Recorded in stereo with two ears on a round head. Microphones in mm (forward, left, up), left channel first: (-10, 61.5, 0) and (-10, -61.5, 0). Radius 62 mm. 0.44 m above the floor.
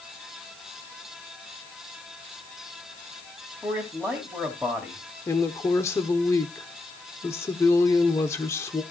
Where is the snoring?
I don't hear snoring.